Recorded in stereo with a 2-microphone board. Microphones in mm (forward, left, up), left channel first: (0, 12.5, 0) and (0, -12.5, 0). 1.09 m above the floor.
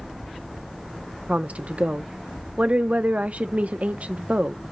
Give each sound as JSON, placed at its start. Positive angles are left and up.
{"t": 1.3, "sound": "a woman speaking", "side_deg": -65, "distance_m": 0.5}